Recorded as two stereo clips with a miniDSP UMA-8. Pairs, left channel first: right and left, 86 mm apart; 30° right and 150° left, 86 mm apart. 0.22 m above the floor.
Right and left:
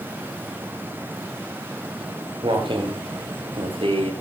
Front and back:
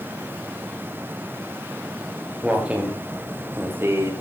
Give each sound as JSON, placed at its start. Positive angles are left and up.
{"t": 2.0, "sound": "footsteps", "azimuth_deg": 70, "distance_m": 5.5}